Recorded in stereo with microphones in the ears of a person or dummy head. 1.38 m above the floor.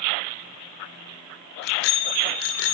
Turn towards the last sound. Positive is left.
turn(degrees=75)  # may be behind; listen again after turning